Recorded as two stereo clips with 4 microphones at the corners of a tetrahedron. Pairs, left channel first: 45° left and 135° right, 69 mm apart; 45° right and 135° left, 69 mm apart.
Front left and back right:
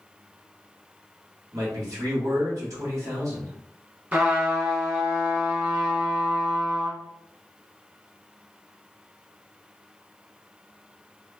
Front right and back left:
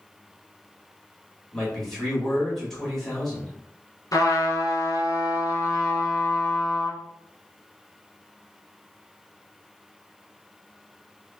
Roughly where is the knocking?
I don't hear knocking.